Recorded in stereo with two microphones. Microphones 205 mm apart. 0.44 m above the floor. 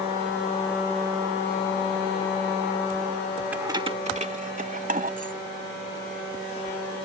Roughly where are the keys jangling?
Centre.